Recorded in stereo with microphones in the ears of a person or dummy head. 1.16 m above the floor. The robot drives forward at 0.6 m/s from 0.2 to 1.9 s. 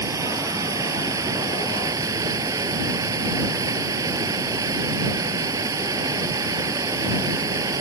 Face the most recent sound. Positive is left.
turn(degrees=-20)  # may be behind; listen again after turning